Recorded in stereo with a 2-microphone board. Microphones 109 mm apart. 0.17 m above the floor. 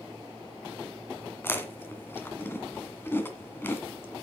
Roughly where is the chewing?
Left.